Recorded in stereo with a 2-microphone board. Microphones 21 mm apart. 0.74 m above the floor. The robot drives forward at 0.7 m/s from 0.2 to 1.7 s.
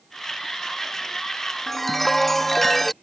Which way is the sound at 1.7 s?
10° left (ahead or behind).